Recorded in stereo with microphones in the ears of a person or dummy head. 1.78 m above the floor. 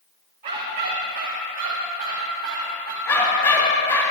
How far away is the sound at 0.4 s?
About 2.5 m.